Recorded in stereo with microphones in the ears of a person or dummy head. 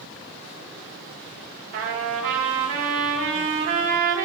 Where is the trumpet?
45° right (ahead or behind), 1.7 m.